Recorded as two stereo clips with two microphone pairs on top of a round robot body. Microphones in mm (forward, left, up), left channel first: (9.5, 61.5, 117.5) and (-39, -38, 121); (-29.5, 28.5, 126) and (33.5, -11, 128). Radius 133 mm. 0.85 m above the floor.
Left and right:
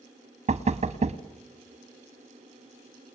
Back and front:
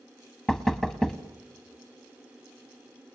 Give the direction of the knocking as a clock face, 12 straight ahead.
4 o'clock.